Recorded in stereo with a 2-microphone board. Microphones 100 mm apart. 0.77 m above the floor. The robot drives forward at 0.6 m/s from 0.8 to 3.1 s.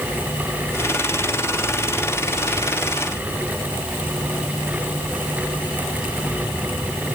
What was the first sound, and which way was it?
Only background noise.